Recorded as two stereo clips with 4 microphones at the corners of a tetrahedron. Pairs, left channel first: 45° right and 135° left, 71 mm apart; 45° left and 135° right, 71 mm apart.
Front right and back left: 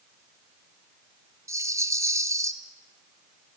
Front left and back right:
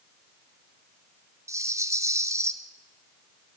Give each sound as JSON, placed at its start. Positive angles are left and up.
{"t": 1.5, "sound": "a rattle", "azimuth_deg": 180, "distance_m": 1.0}